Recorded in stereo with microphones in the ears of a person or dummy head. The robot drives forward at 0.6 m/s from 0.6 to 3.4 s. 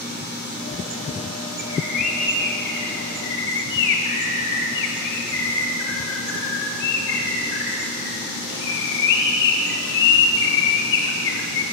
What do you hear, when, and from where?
1.6 s a bird: 40° left (ahead or behind), 1.5 m; by 11.6 s 65° left (ahead or behind), 1.0 m